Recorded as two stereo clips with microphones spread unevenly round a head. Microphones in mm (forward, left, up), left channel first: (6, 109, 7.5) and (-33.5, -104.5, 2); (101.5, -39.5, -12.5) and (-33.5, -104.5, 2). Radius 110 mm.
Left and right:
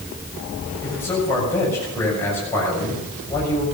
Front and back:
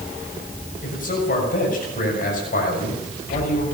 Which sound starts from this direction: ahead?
A man speaking, at 0.8 s.